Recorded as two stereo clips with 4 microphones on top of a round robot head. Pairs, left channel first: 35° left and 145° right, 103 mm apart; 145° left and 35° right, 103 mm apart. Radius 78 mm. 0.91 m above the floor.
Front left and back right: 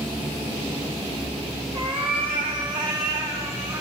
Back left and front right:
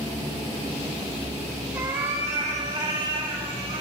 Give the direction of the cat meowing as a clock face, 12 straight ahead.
4 o'clock.